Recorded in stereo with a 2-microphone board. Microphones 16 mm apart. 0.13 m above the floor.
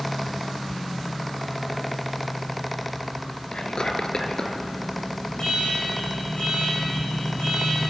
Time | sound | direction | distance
3.5 | whispering | 45° left (ahead or behind) | 2 m
5.4 | an alarm | 65° left (ahead or behind) | 7 m